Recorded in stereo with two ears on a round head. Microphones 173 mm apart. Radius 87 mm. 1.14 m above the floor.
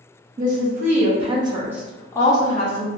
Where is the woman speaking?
45° right (ahead or behind), 1.2 m; by 2.9 s 40° left (ahead or behind), 0.7 m.